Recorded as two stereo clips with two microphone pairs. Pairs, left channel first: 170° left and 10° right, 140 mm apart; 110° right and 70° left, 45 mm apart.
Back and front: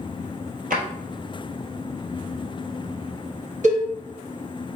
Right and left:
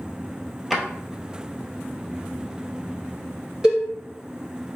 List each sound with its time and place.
0.7 s a drawer: 20° right, 1.0 m
3.6 s a cowbell: straight ahead, 2 m